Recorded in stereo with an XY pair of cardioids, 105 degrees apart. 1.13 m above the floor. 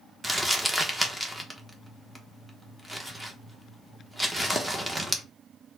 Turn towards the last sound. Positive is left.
turn(degrees=-5)